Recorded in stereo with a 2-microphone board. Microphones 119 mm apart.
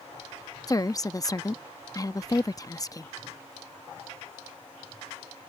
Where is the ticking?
No ticking in this recording.